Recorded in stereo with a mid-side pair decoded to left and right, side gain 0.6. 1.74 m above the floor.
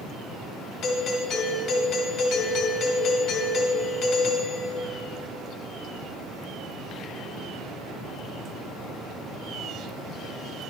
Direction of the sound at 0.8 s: 70° left.